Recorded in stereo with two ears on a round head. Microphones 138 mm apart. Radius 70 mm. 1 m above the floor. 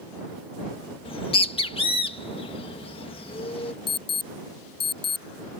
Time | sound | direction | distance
1.1 | a bird | 35° left (ahead or behind) | ?
3.9 | an alarm | 35° left (ahead or behind) | ?